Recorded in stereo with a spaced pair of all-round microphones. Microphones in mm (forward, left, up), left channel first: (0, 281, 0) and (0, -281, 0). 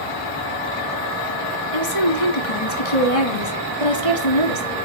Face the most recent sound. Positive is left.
turn(degrees=75)  # may be behind; listen again after turning